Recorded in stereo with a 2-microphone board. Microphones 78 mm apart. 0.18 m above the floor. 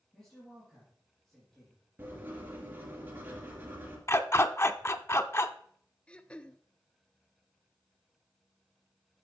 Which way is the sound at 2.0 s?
25° right (ahead or behind).